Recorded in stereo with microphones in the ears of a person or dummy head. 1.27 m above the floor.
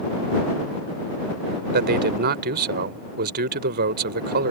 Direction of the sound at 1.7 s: 50° right (ahead or behind).